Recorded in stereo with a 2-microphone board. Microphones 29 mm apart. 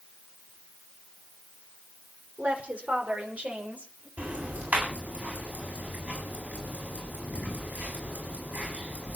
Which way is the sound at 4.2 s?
60° right (ahead or behind).